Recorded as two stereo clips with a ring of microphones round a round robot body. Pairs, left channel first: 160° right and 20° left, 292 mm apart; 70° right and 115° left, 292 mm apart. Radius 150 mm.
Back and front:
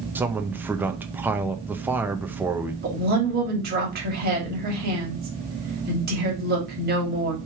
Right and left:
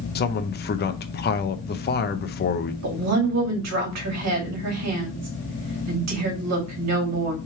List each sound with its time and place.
0.1 s a man speaking: 55° right, 0.6 m
2.8 s a woman speaking: 80° left, 1.9 m